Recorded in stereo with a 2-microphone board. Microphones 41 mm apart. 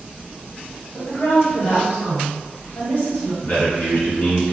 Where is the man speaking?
50° left (ahead or behind), 1.4 m.